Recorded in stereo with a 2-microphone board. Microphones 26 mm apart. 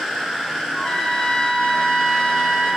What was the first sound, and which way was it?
A trumpet, 50° left (ahead or behind).